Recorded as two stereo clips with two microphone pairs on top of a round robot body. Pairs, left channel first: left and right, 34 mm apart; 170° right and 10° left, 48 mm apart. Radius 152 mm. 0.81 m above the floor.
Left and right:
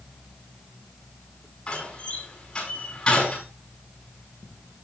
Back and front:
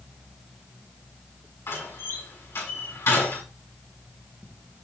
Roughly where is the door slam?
Behind left.